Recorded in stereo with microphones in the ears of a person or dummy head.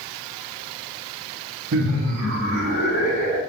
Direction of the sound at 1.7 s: 70° right (ahead or behind).